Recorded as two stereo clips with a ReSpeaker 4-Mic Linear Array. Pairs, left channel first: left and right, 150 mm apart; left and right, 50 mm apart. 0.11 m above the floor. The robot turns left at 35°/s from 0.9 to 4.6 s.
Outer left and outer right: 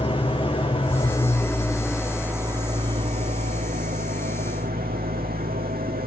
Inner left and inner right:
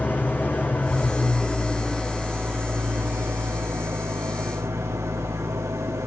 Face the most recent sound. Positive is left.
turn(degrees=-95)